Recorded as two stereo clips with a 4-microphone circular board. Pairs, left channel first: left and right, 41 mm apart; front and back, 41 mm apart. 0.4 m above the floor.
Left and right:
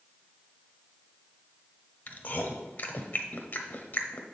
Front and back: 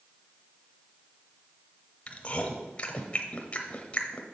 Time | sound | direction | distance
2.1 | chewing | 55° left | 0.9 m